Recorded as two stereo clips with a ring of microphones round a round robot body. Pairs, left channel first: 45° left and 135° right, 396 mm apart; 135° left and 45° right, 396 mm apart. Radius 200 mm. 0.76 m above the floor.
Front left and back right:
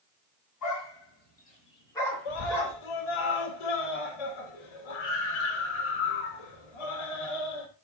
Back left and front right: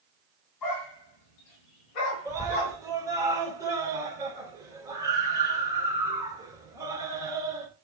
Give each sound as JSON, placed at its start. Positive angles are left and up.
{"t": 0.6, "sound": "a dog barking", "azimuth_deg": 95, "distance_m": 3.0}
{"t": 2.2, "sound": "a scream", "azimuth_deg": 35, "distance_m": 4.0}